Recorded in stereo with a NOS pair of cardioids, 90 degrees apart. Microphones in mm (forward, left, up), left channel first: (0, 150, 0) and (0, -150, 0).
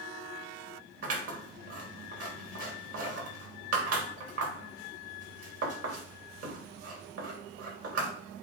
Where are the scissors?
50° right, 3.5 m.